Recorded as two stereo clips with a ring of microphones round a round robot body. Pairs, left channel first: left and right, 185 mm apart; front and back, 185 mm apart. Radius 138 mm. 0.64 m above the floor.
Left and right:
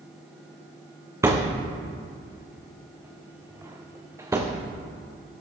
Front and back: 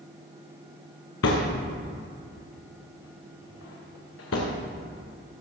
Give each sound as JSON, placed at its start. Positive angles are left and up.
{"t": 1.2, "sound": "a thud", "azimuth_deg": -15, "distance_m": 2.5}